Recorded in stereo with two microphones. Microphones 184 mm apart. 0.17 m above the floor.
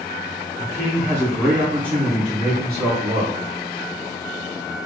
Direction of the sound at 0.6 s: 20° left (ahead or behind).